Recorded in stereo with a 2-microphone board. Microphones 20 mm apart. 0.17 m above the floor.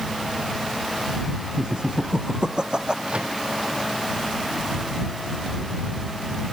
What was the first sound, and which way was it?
Laughter, 45° right (ahead or behind).